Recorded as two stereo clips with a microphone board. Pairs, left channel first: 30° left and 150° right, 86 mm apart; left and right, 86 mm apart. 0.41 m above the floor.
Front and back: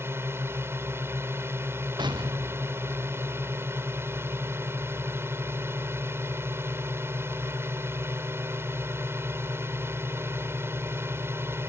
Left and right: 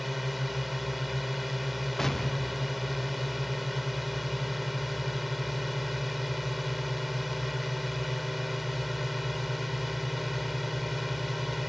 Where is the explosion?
Straight behind.